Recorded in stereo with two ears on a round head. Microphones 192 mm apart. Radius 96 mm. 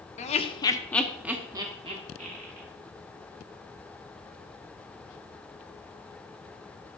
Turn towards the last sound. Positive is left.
turn(degrees=-35)  # may be behind; listen again after turning